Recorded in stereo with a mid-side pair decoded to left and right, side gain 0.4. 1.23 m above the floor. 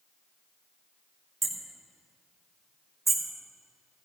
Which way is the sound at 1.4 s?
30° right.